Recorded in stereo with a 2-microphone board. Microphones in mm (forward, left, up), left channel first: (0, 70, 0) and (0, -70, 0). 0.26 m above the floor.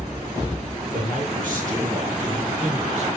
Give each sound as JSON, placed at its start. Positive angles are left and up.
{"t": 0.9, "sound": "a man speaking", "side_deg": -70, "distance_m": 5.0}